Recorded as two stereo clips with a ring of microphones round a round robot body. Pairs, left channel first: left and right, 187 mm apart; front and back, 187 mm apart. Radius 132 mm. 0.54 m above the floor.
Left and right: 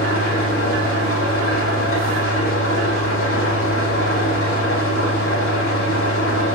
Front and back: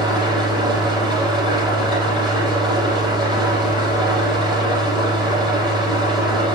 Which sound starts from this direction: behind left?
An engine running, at 0.0 s.